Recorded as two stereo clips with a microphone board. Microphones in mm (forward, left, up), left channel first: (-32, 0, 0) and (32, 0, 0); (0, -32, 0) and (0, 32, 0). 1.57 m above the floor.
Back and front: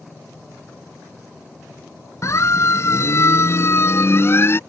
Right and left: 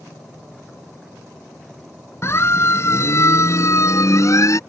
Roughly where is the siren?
Behind right.